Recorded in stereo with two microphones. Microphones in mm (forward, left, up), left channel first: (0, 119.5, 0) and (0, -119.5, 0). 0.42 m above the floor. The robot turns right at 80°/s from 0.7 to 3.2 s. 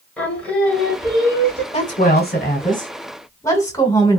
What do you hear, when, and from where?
0.2 s singing: 170° left, 1.3 m; by 1.6 s 115° right, 1.3 m
1.7 s a woman speaking: 40° left, 1.3 m; by 4.2 s 160° left, 1.3 m